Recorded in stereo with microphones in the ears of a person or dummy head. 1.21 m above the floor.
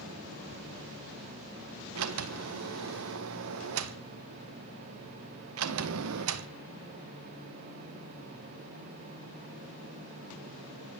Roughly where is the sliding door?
Right.